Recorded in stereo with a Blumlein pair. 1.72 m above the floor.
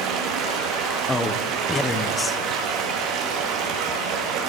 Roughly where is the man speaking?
Ahead.